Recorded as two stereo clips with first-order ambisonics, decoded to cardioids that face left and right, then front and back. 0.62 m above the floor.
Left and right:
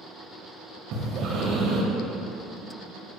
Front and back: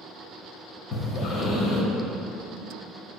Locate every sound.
0.9 s breathing: 45° right, 1.9 m